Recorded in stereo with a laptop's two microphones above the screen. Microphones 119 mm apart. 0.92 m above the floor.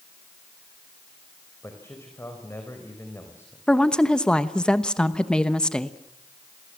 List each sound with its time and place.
1.6 s a man speaking: 20° left (ahead or behind), 4 m
3.7 s a woman speaking: 5° left (ahead or behind), 1.0 m